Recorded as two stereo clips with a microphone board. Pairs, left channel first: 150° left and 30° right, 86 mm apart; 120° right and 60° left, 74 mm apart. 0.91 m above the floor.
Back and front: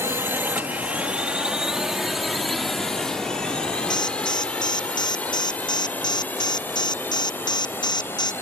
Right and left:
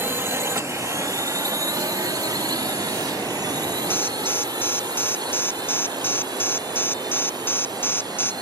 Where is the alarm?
Straight behind.